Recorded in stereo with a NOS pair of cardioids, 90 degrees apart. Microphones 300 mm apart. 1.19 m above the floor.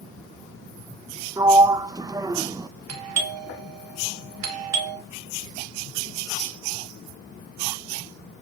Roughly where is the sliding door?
Ahead.